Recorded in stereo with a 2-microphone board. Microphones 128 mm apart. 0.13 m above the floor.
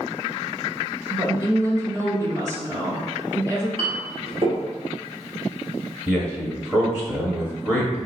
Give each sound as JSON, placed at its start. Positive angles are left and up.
{"t": 1.1, "sound": "a woman speaking", "side_deg": -25, "distance_m": 1.5}
{"t": 3.8, "sound": "a clink", "side_deg": -45, "distance_m": 1.4}
{"t": 6.1, "sound": "a man speaking", "side_deg": -10, "distance_m": 1.1}